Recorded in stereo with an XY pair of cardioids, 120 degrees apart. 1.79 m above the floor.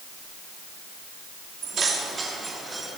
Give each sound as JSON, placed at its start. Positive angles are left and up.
{"t": 1.6, "sound": "keys jangling", "azimuth_deg": -45, "distance_m": 3.0}